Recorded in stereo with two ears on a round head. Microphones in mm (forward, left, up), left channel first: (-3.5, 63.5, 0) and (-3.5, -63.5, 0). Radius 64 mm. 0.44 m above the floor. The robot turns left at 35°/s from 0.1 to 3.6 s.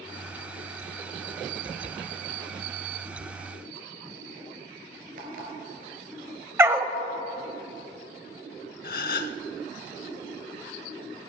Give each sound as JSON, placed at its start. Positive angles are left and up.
{"t": 5.2, "sound": "an alarm clock", "side_deg": -65, "distance_m": 3.0}
{"t": 6.6, "sound": "a dog barking", "side_deg": -15, "distance_m": 0.6}
{"t": 8.8, "sound": "a gasp", "side_deg": 70, "distance_m": 0.6}